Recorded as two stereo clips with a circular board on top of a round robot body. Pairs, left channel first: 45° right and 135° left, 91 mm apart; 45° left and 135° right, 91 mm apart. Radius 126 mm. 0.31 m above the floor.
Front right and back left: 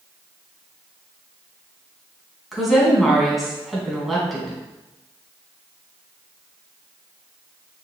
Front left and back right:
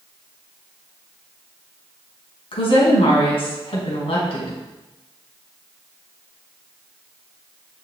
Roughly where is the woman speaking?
Ahead left.